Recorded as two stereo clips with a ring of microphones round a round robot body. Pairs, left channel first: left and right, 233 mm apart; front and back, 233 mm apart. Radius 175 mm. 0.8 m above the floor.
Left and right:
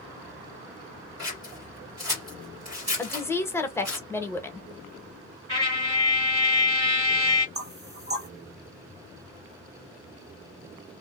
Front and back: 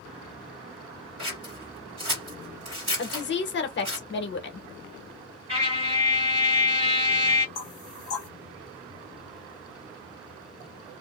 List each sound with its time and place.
1.2 s scissors: 140° right, 1.5 m
3.0 s a woman speaking: 10° left, 1.0 m
5.5 s a trumpet: 140° right, 1.8 m
7.5 s knocking: 40° right, 1.1 m